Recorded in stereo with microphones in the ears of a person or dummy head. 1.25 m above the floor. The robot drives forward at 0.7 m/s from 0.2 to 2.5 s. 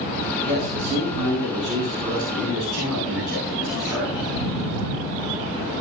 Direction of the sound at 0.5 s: 5° left (ahead or behind).